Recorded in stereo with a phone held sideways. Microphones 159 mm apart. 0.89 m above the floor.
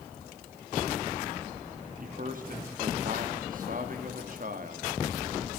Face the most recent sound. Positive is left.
turn(degrees=-60)  # may be behind; listen again after turning